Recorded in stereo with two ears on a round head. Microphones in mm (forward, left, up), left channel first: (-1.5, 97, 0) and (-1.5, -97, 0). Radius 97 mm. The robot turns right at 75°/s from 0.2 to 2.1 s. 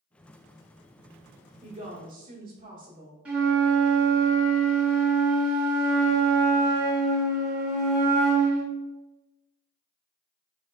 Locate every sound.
1.6 s a woman speaking: 140° right, 0.9 m; by 3.1 s 105° right, 0.9 m
3.2 s a flute: 5° right (ahead or behind), 1.3 m